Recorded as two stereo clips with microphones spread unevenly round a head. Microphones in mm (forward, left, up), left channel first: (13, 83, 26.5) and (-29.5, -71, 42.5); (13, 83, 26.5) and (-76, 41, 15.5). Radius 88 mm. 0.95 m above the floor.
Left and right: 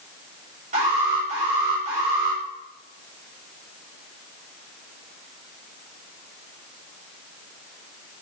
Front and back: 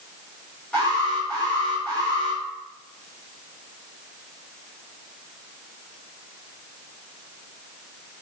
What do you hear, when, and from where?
0.7 s an alarm: 55° right, 3.5 m